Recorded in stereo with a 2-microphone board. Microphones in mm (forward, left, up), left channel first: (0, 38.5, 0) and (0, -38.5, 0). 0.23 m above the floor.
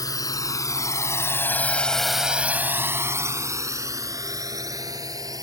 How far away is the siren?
No siren in this recording.